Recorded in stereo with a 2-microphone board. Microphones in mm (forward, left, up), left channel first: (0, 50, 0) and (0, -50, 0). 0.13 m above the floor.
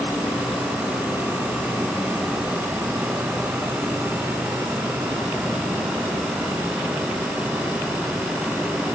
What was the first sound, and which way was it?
Only background noise.